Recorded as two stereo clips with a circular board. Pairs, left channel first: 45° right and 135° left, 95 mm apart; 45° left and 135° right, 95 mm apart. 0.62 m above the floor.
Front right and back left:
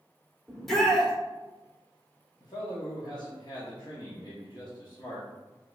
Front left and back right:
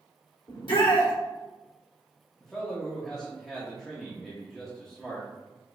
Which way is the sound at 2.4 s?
40° right.